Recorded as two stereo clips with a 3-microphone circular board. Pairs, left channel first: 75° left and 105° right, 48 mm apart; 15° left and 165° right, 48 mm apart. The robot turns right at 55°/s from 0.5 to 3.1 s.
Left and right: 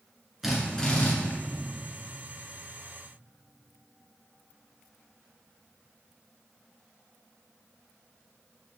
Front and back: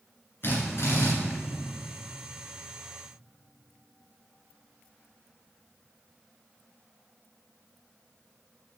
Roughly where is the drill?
Ahead.